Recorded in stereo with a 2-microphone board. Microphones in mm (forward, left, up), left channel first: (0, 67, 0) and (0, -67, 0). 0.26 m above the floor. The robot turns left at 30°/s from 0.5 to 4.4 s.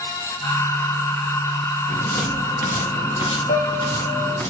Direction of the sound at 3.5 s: 75° left (ahead or behind).